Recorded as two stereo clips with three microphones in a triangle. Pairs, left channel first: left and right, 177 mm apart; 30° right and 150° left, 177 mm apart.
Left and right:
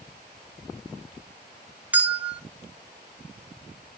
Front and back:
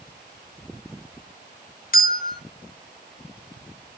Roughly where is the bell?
Ahead.